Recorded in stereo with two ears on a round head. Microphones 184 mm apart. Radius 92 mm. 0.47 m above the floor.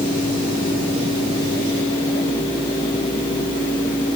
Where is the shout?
I don't hear a shout.